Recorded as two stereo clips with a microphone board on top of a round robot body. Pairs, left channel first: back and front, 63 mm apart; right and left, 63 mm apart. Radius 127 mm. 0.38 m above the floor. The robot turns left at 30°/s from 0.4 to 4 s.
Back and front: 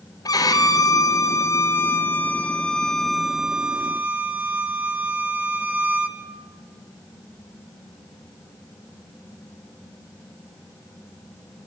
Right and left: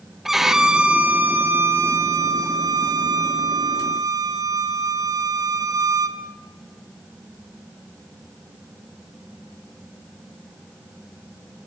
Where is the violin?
175° left, 2.5 m; by 6.2 s 65° left, 2.5 m.